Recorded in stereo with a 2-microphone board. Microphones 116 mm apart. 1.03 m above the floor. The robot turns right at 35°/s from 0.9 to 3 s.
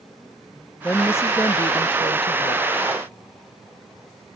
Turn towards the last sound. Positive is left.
turn(degrees=85)